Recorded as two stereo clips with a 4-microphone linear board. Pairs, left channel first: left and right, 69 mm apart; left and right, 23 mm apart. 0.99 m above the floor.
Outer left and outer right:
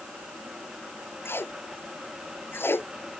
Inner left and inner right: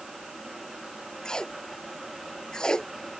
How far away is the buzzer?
No buzzer in this recording.